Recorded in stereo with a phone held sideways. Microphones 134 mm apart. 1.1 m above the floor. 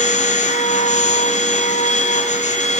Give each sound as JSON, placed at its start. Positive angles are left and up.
{"t": 0.0, "sound": "a machine running", "side_deg": 60, "distance_m": 1.3}